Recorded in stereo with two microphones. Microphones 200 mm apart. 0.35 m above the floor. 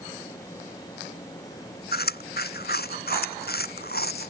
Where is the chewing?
50° left (ahead or behind).